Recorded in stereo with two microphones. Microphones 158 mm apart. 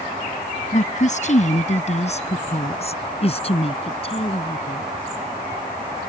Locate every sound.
0.7 s a woman speaking: 50° left (ahead or behind); by 4.9 s 35° left (ahead or behind)